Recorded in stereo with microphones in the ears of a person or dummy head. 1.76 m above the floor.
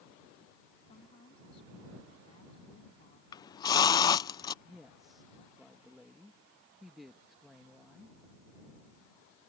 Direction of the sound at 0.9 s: 30° left (ahead or behind).